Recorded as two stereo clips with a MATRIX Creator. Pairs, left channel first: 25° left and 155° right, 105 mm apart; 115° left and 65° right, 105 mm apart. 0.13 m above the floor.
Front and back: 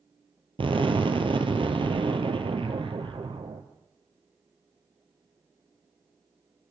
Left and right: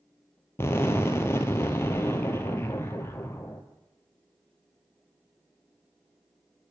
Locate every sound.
0.6 s an explosion: 175° left, 0.7 m